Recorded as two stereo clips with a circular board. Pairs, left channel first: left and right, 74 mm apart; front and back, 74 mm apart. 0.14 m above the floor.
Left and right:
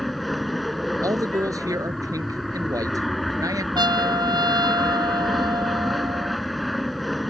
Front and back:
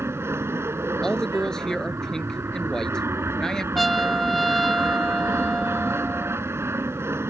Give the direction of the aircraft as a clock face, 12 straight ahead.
6 o'clock.